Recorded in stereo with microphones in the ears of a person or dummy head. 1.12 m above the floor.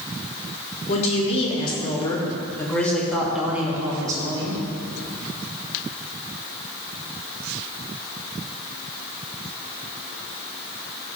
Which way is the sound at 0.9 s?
40° left (ahead or behind).